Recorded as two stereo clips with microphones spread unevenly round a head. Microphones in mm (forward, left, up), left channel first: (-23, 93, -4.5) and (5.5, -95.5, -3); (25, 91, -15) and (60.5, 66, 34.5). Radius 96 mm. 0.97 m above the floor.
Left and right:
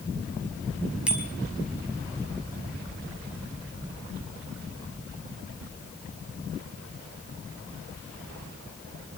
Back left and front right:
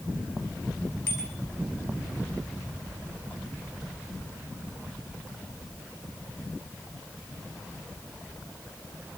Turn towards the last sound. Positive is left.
turn(degrees=-165)